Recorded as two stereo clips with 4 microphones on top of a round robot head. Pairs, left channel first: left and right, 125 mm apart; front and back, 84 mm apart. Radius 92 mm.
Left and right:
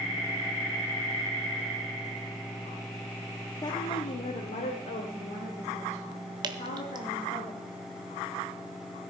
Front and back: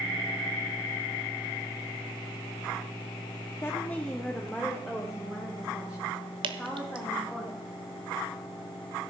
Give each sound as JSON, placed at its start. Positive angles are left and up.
{"t": 3.6, "sound": "a woman speaking", "azimuth_deg": 45, "distance_m": 0.8}
{"t": 6.4, "sound": "dripping", "azimuth_deg": -150, "distance_m": 0.7}